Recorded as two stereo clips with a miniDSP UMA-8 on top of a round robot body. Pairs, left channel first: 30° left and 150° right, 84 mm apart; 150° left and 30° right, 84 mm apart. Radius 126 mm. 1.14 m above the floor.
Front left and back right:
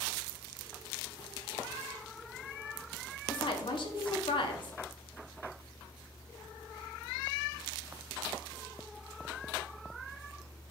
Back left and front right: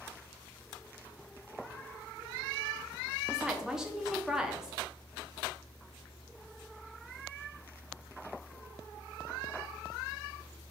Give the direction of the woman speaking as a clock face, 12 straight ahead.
10 o'clock.